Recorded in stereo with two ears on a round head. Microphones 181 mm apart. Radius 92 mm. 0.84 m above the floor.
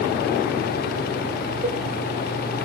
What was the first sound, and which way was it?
A cowbell, 30° right (ahead or behind).